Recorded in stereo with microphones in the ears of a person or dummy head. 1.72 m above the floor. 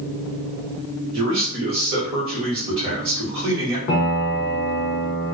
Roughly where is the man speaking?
Right.